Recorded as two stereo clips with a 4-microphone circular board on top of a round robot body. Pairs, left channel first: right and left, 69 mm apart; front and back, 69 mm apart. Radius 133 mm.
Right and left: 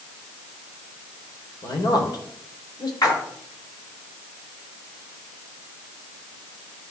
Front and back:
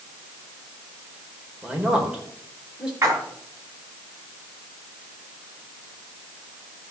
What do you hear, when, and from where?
1.6 s a man speaking: 100° right, 3.5 m
3.0 s a splash: 130° right, 4 m